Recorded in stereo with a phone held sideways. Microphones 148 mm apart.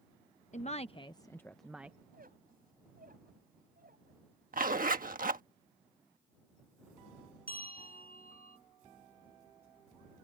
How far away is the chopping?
I don't hear chopping.